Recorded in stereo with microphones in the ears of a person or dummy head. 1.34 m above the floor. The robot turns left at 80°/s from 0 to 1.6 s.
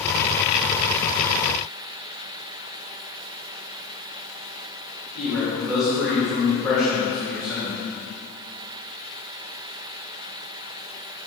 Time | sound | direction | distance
5.2 | a man speaking | 5° left (ahead or behind) | 2.5 m